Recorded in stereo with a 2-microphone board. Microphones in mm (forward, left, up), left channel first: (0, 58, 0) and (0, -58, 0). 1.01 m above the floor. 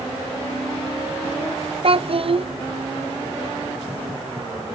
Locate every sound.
1.8 s a child speaking: 55° right (ahead or behind), 0.5 m